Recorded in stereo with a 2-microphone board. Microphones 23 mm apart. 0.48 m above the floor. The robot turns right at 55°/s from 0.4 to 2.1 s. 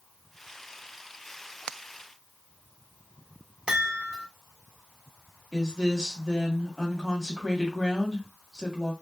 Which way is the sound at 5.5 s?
20° left (ahead or behind).